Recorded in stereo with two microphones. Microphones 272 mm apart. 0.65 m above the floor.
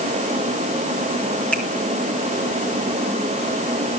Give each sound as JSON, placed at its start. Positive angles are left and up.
{"t": 1.5, "sound": "a finger snap", "side_deg": 5, "distance_m": 5.5}